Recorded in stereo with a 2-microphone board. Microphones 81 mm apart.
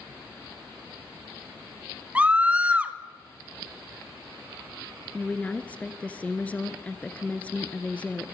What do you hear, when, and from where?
2.1 s a scream: 15° right (ahead or behind), 1.1 m
5.1 s a woman speaking: 15° left (ahead or behind), 1.5 m